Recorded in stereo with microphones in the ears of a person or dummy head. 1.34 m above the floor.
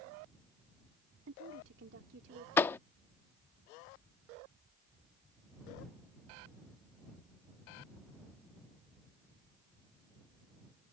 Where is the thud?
15° left (ahead or behind).